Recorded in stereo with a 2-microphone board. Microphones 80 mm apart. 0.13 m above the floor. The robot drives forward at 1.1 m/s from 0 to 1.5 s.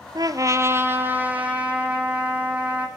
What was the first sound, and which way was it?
A trumpet, 60° right (ahead or behind).